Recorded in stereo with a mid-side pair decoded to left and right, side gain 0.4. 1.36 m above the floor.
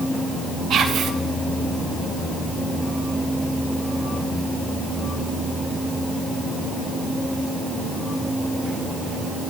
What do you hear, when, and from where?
0.7 s whispering: 70° right, 1.3 m